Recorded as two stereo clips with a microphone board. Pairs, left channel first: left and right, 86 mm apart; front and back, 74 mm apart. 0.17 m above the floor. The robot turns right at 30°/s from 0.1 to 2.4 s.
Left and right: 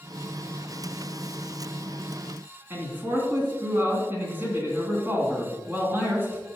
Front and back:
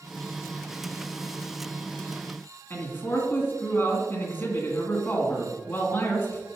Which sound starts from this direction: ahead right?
A man speaking, at 2.7 s.